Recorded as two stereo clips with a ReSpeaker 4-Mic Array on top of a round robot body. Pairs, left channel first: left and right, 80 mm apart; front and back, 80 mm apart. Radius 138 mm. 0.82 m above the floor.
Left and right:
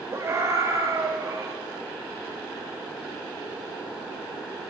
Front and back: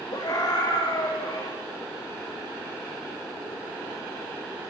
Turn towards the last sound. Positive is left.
turn(degrees=-40)